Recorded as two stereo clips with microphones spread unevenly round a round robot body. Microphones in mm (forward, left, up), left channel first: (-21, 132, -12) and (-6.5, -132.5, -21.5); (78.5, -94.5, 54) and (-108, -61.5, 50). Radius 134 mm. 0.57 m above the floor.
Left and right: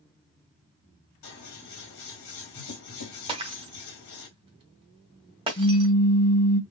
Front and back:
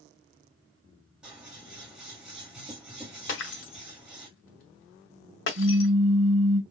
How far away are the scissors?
About 2.5 m.